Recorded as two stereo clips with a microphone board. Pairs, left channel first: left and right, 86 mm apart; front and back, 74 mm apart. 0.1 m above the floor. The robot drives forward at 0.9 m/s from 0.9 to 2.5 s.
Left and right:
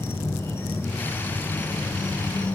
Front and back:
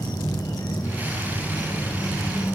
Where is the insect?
30° left, 3 m; by 2.5 s 50° left, 1.9 m.